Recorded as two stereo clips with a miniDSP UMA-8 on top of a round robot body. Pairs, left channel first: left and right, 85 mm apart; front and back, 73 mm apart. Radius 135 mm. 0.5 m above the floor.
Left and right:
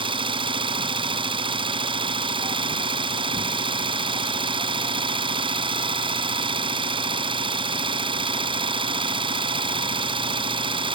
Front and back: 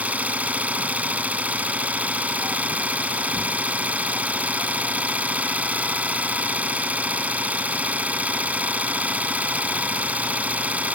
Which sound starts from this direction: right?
An engine running, at 0.0 s.